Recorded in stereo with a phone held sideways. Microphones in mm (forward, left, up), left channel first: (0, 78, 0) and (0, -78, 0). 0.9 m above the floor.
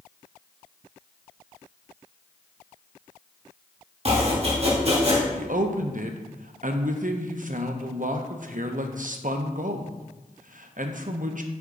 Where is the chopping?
45° right (ahead or behind), 1.8 m.